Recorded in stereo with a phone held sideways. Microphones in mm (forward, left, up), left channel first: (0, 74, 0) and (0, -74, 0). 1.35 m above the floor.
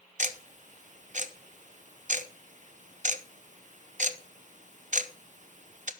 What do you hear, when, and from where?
0.2 s ticking: 55° right (ahead or behind), 0.7 m